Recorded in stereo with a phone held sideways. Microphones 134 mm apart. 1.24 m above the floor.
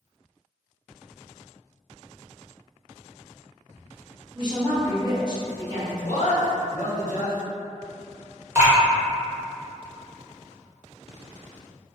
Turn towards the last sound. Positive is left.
turn(degrees=-15)  # may be behind; listen again after turning